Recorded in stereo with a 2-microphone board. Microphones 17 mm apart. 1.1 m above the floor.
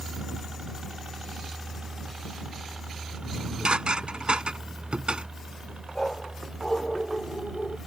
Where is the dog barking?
35° left (ahead or behind).